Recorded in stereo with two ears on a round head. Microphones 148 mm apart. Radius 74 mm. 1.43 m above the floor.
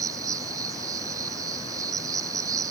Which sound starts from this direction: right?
An insect, at 0.0 s.